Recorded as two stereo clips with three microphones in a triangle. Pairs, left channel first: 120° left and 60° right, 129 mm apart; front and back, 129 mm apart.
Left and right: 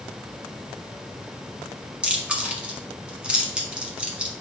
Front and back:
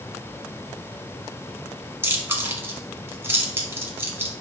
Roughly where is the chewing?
Behind right.